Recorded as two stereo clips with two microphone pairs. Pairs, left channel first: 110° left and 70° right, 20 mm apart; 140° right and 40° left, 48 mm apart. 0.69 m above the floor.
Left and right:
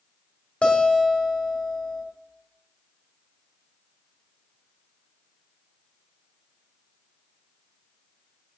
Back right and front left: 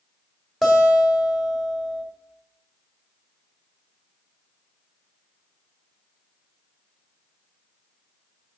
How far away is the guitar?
About 1.6 m.